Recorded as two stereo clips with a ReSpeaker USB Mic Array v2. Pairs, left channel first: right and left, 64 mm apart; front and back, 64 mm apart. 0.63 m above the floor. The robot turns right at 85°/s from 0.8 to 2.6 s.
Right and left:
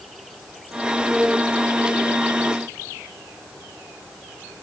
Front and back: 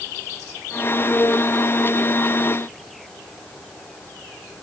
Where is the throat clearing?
I don't hear throat clearing.